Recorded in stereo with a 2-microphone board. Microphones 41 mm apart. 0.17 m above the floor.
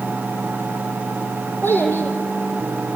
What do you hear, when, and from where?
1.6 s a child speaking: 60° left (ahead or behind), 5.5 m